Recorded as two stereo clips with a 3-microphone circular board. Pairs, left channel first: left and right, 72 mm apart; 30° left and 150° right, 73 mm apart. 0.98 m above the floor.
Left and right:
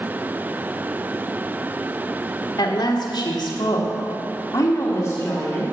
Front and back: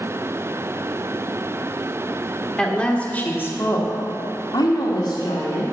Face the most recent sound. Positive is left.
turn(degrees=25)